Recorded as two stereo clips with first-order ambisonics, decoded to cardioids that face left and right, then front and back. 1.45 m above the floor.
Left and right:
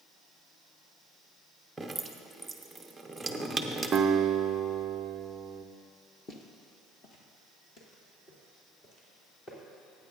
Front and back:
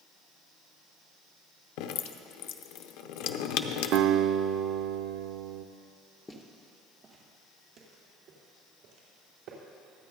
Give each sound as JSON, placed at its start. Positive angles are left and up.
{"t": 1.8, "sound": "dripping", "azimuth_deg": -5, "distance_m": 0.7}
{"t": 3.9, "sound": "a guitar", "azimuth_deg": -155, "distance_m": 0.5}
{"t": 6.3, "sound": "footsteps", "azimuth_deg": 60, "distance_m": 1.5}